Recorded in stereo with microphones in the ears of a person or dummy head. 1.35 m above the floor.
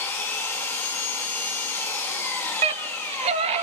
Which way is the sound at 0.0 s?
15° left (ahead or behind).